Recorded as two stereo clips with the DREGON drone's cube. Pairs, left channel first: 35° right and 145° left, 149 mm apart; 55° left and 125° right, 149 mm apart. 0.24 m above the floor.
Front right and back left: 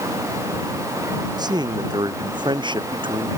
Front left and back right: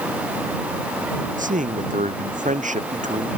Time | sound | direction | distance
1.4 | a man speaking | 155° right | ?